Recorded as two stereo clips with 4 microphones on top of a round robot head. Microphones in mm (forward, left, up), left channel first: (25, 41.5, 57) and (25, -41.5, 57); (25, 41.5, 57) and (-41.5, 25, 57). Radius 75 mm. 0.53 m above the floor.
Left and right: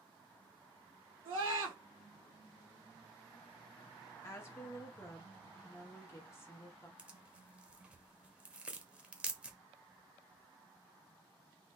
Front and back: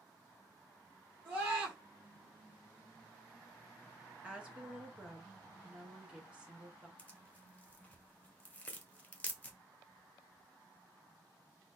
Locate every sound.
1.2 s a scream: 105° right, 3 m
4.2 s a woman speaking: 130° left, 1.0 m
7.0 s tearing paper: 30° right, 1.0 m